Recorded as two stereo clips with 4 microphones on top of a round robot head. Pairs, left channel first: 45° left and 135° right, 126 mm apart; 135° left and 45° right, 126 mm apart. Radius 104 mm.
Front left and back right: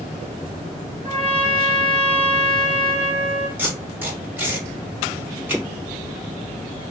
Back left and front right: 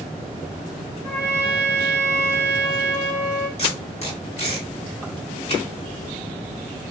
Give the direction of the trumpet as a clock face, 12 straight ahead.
6 o'clock.